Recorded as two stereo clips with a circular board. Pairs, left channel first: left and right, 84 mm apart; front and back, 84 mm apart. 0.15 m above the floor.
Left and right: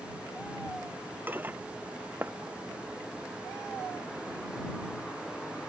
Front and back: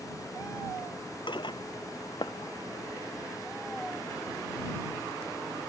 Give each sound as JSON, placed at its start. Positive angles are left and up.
{"t": 1.3, "sound": "dishes clattering", "azimuth_deg": -25}